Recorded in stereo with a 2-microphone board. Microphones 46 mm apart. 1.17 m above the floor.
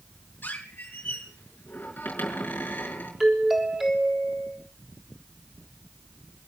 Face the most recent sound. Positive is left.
turn(degrees=-5)  # may be behind; listen again after turning